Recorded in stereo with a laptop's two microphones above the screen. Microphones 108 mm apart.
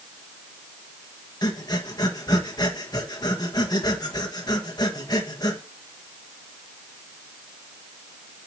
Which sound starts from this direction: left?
Breathing, at 1.4 s.